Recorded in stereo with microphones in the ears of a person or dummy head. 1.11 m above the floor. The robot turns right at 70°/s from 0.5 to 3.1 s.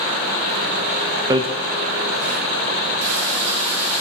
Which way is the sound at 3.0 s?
70° right (ahead or behind).